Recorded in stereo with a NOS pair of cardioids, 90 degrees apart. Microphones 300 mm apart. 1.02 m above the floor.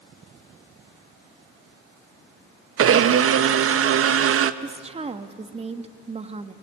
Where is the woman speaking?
20° right, 1.3 m.